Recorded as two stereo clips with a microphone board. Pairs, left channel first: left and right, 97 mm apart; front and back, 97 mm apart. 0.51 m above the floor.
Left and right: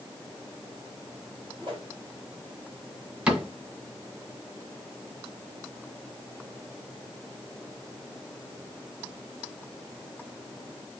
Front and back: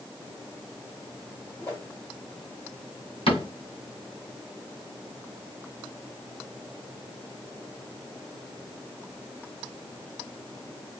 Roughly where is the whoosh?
Ahead right.